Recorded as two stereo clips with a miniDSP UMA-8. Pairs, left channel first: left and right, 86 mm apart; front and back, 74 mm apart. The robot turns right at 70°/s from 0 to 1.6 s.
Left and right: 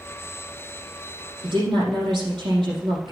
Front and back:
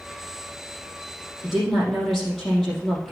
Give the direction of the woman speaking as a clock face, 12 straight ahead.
3 o'clock.